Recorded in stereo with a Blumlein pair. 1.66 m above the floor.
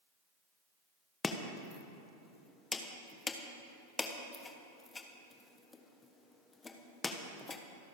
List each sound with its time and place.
1.2 s chopping: 15° left, 1.3 m